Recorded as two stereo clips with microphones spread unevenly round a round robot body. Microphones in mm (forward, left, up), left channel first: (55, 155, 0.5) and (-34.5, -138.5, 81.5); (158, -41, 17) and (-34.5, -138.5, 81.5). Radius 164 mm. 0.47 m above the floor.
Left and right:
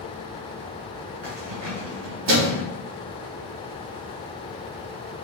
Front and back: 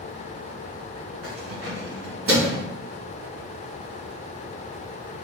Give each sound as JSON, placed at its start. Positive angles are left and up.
{"t": 1.2, "sound": "keys jangling", "azimuth_deg": -155, "distance_m": 2.0}